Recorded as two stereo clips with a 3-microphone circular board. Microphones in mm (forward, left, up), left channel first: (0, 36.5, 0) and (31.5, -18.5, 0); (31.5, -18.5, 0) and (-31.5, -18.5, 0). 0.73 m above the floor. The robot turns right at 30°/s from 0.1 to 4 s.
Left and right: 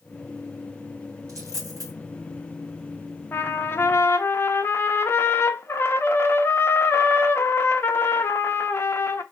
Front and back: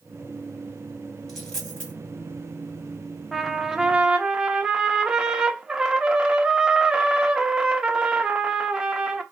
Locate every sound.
1.3 s a dropped coin: 90° right, 1.8 m; by 1.9 s 70° right, 1.8 m
3.3 s a trumpet: 90° left, 0.5 m; by 9.2 s 110° left, 0.5 m